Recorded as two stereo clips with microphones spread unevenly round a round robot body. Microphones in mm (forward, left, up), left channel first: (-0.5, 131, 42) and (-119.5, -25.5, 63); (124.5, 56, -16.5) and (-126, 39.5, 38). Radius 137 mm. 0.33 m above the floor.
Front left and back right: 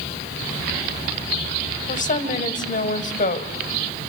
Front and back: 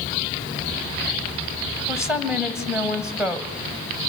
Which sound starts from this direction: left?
A woman speaking, at 1.9 s.